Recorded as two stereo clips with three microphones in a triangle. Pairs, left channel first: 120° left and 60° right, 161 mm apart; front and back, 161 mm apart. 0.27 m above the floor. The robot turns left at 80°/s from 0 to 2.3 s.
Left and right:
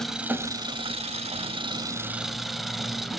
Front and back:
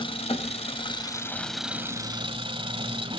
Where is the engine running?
35° left, 1.4 m; by 3.2 s 150° right, 1.4 m.